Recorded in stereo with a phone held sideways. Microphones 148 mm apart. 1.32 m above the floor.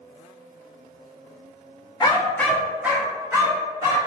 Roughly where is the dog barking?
Left.